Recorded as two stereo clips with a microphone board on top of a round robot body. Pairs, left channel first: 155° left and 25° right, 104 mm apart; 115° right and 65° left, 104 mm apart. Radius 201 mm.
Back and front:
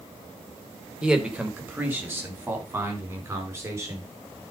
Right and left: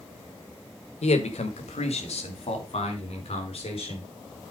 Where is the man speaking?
105° right, 1.6 m; by 4.1 s 85° right, 4.5 m.